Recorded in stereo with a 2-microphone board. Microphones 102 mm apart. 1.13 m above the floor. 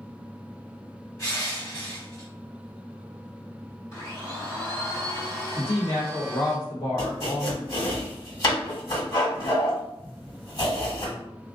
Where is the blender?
40° left (ahead or behind), 1.7 m.